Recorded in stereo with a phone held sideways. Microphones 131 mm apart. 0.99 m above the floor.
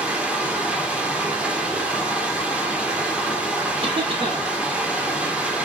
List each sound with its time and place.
0.0 s running water: 10° right (ahead or behind), 1.1 m
3.8 s a cough: 45° right (ahead or behind), 2 m